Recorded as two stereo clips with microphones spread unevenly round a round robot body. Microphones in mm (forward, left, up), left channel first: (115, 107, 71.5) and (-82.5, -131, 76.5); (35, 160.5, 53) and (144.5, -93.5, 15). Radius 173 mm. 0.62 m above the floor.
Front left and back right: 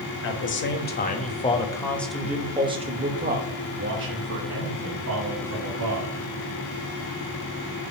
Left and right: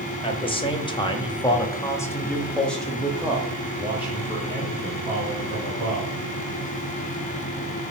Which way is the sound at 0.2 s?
40° left.